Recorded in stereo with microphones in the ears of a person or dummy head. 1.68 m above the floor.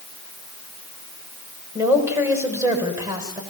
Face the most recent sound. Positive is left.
turn(degrees=-20)  # may be behind; listen again after turning